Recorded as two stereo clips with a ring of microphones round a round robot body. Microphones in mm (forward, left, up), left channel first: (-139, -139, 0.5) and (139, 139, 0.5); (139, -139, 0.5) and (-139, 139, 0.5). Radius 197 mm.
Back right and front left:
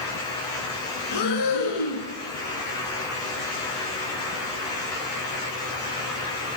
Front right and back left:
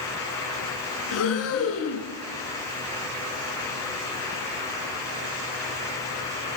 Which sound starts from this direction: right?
Breathing, at 1.1 s.